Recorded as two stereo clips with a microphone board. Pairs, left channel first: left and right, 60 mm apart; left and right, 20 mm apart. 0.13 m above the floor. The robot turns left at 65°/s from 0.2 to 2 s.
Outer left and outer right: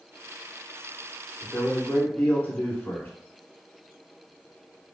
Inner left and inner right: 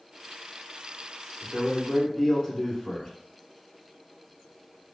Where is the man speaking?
20° left (ahead or behind), 1.1 m; by 3.1 s 25° left (ahead or behind), 1.1 m.